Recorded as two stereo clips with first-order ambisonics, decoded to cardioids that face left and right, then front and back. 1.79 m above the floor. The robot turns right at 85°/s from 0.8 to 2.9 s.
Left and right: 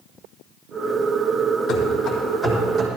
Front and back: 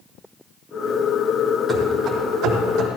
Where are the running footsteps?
85° left, 2.5 m; by 2.9 s 150° right, 3 m.